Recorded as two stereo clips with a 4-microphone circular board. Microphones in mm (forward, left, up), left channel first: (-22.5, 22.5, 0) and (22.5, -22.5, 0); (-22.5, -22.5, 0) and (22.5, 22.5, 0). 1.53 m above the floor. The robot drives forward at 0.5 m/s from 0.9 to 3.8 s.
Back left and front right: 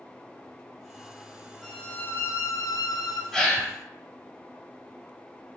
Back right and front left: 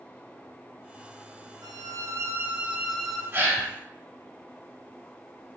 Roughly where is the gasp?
Ahead left.